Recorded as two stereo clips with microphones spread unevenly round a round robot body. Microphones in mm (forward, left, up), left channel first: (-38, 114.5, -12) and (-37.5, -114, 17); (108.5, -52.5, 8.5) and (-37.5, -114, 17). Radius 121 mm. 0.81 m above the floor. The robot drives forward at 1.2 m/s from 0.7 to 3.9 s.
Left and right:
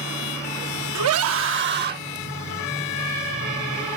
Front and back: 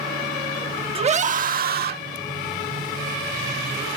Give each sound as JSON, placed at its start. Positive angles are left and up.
{"t": 0.9, "sound": "a scream", "azimuth_deg": -105}